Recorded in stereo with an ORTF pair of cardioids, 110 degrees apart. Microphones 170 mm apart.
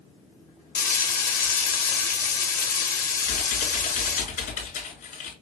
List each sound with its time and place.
0.8 s frying: 55° left, 1.0 m
3.2 s typing on a keyboard: 60° left, 2 m